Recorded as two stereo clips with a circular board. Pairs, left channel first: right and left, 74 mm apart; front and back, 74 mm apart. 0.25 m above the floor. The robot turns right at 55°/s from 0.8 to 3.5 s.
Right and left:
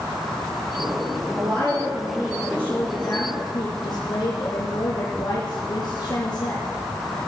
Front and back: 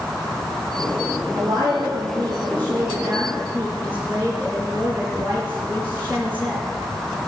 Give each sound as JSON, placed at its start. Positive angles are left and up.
{"t": 1.3, "sound": "a woman speaking", "azimuth_deg": 125, "distance_m": 5.5}